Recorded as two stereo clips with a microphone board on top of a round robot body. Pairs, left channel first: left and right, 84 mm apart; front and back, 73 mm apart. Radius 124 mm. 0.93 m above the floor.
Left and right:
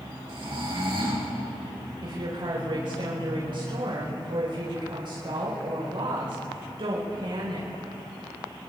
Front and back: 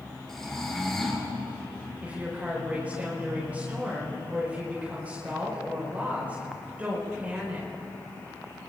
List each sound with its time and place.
0.3 s snoring: 85° right, 3 m
2.0 s a woman speaking: 110° right, 4.5 m